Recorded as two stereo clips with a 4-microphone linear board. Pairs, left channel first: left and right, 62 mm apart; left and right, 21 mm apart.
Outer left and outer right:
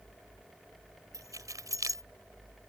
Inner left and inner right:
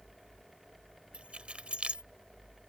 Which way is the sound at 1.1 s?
65° right (ahead or behind).